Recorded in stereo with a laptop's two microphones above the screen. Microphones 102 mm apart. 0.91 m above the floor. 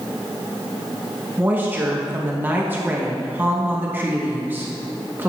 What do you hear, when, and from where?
1.4 s a woman speaking: 20° right (ahead or behind), 1.1 m